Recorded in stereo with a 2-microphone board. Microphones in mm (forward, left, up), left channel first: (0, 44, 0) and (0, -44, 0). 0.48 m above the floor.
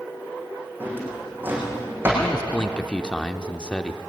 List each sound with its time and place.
0.8 s a drawer: 20° right (ahead or behind), 6.5 m
2.2 s a man speaking: 10° left (ahead or behind), 0.8 m